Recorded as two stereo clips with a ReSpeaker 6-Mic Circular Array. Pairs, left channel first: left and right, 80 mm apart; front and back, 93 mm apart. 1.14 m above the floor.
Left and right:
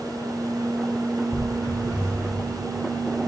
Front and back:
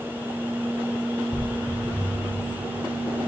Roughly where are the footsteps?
Ahead left.